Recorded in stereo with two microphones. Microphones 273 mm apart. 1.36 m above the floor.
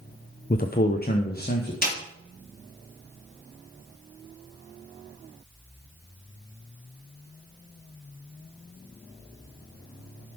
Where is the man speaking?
35° left (ahead or behind), 0.6 m.